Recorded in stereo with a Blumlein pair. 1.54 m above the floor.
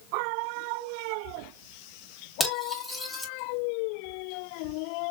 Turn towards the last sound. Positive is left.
turn(degrees=5)